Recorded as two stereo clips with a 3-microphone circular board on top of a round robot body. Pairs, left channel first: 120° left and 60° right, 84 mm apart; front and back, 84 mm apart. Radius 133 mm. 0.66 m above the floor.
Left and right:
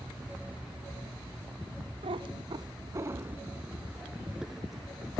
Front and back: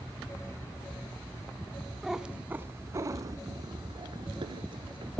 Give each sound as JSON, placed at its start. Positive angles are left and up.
{"t": 2.0, "sound": "a cat meowing", "azimuth_deg": -90, "distance_m": 1.0}